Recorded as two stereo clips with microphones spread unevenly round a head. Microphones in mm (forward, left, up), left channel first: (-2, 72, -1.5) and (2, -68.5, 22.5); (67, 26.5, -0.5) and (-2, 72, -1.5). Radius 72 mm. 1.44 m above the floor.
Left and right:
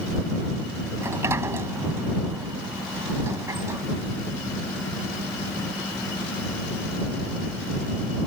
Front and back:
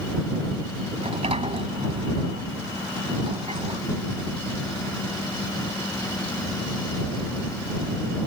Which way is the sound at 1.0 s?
160° right.